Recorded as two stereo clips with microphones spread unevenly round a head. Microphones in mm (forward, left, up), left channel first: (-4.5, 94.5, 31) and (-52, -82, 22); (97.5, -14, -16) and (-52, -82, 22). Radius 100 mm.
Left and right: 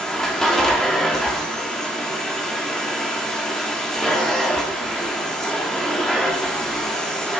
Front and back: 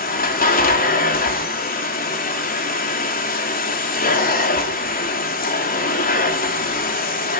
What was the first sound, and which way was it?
A machine running, 10° right.